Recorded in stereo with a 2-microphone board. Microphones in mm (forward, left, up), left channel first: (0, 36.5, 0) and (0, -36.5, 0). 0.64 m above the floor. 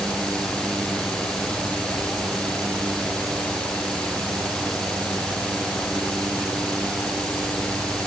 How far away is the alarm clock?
I don't hear an alarm clock.